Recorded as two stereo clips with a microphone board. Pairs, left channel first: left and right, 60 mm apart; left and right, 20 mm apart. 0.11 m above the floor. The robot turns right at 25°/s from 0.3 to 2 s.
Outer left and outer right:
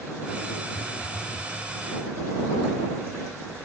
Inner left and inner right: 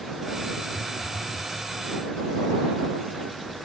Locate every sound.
0.7 s a phone buzzing: 15° left (ahead or behind); by 1.5 s 35° left (ahead or behind)